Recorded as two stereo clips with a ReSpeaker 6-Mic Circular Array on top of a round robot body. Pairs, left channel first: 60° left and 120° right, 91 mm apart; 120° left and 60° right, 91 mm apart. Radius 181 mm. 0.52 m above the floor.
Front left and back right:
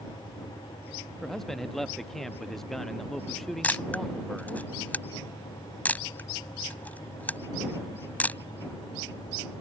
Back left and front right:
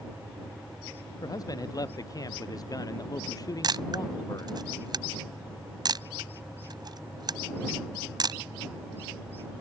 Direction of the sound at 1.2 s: 145° left.